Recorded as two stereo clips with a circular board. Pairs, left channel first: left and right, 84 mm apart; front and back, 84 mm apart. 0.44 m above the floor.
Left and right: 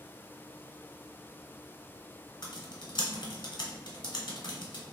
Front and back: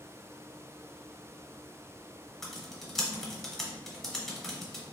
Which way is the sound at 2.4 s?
85° left.